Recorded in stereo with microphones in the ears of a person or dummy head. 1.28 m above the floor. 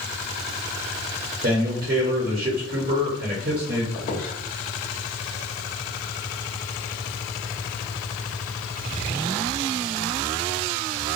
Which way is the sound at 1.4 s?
50° right (ahead or behind).